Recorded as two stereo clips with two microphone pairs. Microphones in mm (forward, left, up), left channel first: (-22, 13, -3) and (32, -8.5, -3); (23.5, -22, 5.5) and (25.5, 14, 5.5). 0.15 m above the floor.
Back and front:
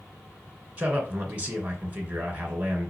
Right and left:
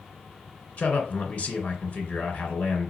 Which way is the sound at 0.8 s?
75° right.